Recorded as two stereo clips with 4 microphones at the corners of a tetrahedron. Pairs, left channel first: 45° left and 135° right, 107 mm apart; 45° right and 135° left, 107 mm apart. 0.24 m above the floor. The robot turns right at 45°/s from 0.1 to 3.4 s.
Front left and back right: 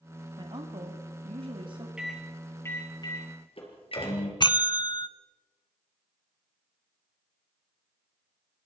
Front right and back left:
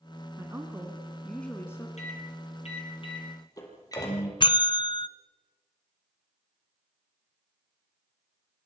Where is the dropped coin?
I don't hear a dropped coin.